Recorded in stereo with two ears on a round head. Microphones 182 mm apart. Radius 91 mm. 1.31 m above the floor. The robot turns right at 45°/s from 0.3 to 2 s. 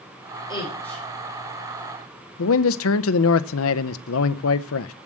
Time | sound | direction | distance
0.5 | a woman speaking | 25° left (ahead or behind) | 4.5 m
2.4 | a man speaking | 75° left (ahead or behind) | 0.6 m